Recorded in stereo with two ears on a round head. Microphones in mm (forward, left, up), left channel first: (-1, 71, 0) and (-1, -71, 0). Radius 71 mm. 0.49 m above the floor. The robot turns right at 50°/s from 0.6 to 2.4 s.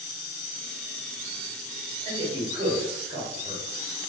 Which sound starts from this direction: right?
A man speaking, at 2.0 s.